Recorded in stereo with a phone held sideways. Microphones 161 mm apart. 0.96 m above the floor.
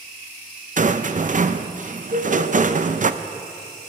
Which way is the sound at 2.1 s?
65° right (ahead or behind).